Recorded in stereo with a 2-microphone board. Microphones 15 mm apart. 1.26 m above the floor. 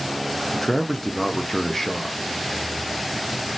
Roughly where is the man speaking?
Left.